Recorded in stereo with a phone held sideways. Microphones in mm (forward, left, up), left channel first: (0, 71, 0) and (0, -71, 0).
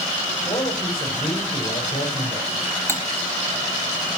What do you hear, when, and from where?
0.5 s a man speaking: 45° left (ahead or behind), 5 m
2.9 s cutlery clinking: 15° left (ahead or behind), 1.2 m